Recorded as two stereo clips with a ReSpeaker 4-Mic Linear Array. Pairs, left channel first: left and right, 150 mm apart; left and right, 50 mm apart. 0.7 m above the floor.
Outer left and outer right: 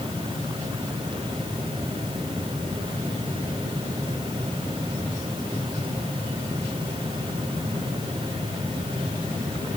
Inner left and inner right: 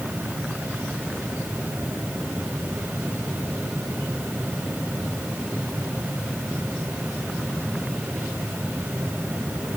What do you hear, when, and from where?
Only background noise.